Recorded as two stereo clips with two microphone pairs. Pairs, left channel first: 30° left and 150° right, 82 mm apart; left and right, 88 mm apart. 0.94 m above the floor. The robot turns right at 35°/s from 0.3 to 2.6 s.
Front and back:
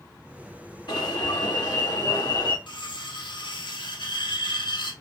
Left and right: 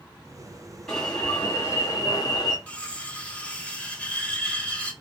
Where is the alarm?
5° left, 2 m; by 2.6 s 60° left, 2 m.